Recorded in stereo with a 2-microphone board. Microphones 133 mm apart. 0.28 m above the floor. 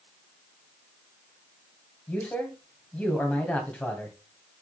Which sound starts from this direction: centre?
A man speaking, at 2.1 s.